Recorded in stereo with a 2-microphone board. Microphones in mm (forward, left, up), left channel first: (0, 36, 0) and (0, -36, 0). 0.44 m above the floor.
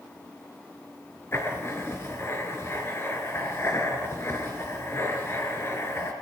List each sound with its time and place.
1.3 s writing: 35° left (ahead or behind), 4 m